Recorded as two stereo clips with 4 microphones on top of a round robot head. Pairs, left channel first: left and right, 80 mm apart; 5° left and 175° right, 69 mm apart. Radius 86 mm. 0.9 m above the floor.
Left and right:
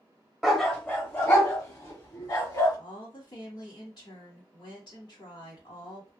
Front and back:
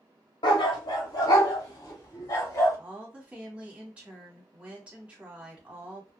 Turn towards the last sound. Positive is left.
turn(degrees=115)